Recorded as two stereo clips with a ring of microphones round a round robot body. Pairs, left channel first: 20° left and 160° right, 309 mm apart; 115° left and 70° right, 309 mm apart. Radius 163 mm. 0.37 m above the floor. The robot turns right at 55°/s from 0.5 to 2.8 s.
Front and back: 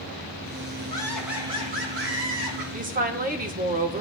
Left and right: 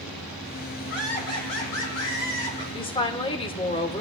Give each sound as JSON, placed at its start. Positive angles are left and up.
{"t": 0.9, "sound": "laughter", "azimuth_deg": 95, "distance_m": 3.5}
{"t": 2.7, "sound": "a woman speaking", "azimuth_deg": 165, "distance_m": 1.0}